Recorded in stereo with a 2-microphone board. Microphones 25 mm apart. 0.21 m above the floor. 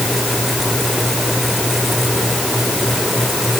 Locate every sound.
Only background noise.